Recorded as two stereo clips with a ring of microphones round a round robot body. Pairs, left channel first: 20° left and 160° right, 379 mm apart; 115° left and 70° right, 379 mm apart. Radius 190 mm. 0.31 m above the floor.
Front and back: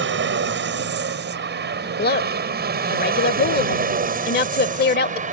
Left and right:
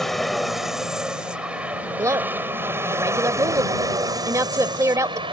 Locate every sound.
0.0 s an aircraft: 160° right; by 5.3 s 125° right
2.0 s a woman speaking: 5° left